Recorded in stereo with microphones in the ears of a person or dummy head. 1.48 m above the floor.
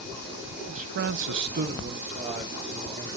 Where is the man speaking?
35° right (ahead or behind), 0.9 m; by 3.1 s 30° right (ahead or behind), 2.5 m.